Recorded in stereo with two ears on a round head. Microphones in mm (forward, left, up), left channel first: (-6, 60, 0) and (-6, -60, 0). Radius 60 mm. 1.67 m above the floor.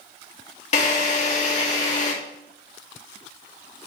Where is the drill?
55° left (ahead or behind), 2.5 m.